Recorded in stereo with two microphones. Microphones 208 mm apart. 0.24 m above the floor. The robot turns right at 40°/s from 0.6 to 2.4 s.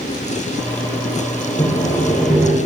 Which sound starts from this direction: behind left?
Sawing, at 1.6 s.